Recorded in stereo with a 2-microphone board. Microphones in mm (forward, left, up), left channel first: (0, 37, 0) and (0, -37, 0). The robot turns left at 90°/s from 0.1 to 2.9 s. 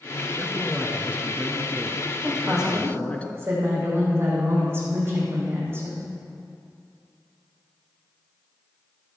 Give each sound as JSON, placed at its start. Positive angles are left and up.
{"t": 0.3, "sound": "a man speaking", "side_deg": -5, "distance_m": 1.3}
{"t": 2.2, "sound": "a woman speaking", "azimuth_deg": 25, "distance_m": 5.0}